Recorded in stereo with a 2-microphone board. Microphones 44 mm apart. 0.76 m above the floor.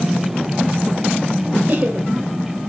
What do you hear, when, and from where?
1.7 s laughter: 45° right (ahead or behind), 3 m